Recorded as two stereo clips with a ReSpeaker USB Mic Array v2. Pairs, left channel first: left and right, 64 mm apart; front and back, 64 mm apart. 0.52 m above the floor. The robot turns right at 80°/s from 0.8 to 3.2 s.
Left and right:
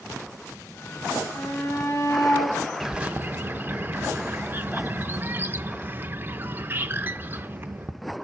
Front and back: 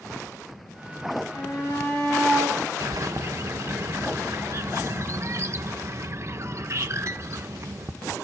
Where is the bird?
175° right, 0.6 m; by 7.9 s 145° right, 0.6 m.